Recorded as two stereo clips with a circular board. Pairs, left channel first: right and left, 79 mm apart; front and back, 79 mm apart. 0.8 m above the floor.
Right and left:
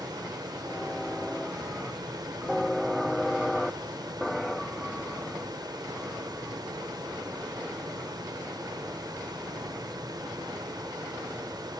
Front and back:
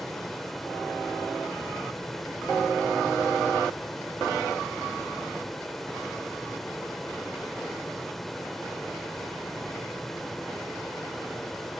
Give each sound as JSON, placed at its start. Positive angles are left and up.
{"t": 0.0, "sound": "running water", "azimuth_deg": 85, "distance_m": 0.7}